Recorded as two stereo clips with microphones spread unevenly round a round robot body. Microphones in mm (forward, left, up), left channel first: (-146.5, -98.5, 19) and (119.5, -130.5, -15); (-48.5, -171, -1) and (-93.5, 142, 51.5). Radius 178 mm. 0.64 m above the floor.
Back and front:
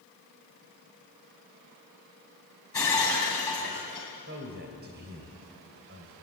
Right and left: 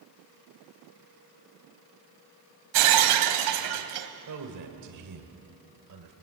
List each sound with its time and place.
2.7 s breaking glass: 90° left, 1.8 m
4.3 s a man speaking: 55° left, 2.5 m